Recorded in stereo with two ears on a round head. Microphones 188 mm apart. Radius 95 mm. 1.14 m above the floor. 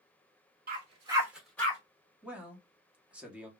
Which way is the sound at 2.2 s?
5° right (ahead or behind).